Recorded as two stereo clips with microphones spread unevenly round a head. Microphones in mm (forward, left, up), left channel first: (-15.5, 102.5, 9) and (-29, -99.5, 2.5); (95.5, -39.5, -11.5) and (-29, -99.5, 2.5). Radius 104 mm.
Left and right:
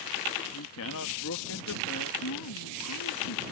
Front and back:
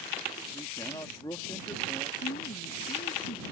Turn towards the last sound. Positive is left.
turn(degrees=80)